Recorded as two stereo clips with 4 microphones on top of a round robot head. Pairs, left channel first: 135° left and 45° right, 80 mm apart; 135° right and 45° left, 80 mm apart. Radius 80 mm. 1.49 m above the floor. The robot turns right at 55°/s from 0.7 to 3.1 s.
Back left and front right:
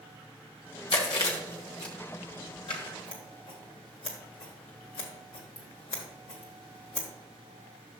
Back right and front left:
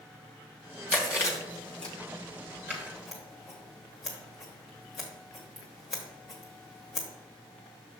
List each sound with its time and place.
0.9 s chewing: 155° left, 0.9 m; by 1.9 s 145° right, 0.9 m
2.7 s scissors: 110° left, 1.1 m; by 7.1 s 135° left, 1.1 m